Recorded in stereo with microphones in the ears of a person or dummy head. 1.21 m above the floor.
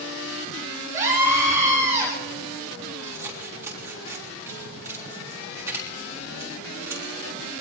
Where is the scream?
15° right (ahead or behind), 8 m.